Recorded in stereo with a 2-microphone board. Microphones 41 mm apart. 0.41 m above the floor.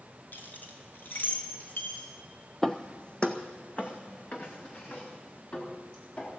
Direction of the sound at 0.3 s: 50° left (ahead or behind).